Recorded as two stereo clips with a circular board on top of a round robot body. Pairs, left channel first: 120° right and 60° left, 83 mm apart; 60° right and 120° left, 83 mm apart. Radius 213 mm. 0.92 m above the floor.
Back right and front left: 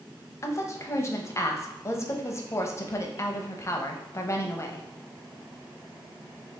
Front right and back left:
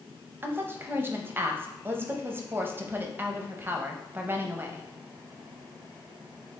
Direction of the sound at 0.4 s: 175° right.